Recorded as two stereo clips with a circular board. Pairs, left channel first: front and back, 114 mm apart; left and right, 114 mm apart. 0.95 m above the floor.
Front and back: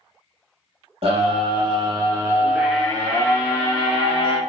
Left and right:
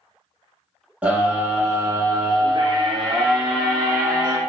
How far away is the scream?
About 1.0 m.